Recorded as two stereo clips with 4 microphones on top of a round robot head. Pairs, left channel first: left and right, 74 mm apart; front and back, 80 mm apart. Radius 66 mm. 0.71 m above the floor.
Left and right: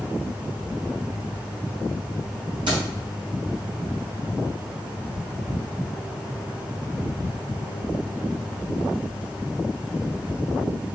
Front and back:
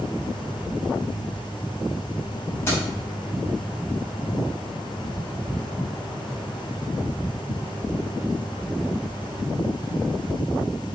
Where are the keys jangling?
70° right, 3 m.